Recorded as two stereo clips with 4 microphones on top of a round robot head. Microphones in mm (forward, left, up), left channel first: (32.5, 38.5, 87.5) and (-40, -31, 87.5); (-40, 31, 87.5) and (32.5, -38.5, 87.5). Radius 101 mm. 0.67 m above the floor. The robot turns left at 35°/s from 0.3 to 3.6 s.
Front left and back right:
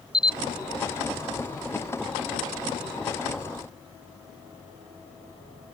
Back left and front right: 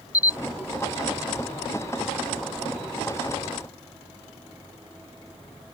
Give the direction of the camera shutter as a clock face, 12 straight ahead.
7 o'clock.